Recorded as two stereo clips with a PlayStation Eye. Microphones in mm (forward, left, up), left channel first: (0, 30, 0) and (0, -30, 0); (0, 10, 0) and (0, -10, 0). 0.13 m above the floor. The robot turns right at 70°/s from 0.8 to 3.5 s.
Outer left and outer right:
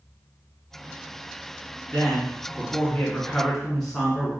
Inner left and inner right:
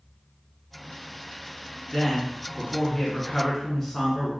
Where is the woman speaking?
60° left, 1.3 m; by 4.3 s 170° left, 1.3 m.